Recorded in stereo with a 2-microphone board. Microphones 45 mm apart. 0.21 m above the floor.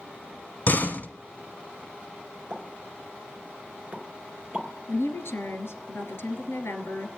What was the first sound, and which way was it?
A door slam, 45° left (ahead or behind).